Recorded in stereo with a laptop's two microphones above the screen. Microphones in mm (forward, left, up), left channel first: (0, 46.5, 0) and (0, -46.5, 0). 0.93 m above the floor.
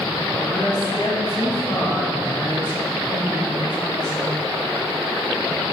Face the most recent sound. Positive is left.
turn(degrees=45)  # may be behind; listen again after turning